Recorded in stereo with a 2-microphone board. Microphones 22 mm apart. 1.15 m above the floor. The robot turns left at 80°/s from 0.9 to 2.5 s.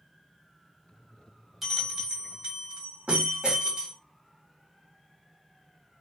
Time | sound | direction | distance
1.6 | a bell | 10° right | 1.8 m